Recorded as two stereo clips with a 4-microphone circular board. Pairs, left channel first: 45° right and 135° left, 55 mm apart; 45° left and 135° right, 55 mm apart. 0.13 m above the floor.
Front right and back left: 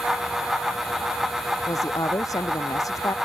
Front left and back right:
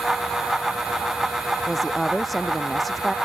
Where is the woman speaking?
45° right.